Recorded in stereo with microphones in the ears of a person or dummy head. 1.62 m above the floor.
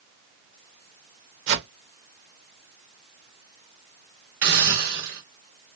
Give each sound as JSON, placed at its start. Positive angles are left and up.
{"t": 1.5, "sound": "a whoosh", "side_deg": -70, "distance_m": 1.2}
{"t": 4.4, "sound": "a hiss", "side_deg": -50, "distance_m": 1.8}